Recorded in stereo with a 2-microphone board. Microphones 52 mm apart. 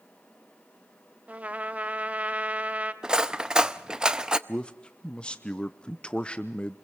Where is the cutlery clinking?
15° right (ahead or behind), 0.5 m.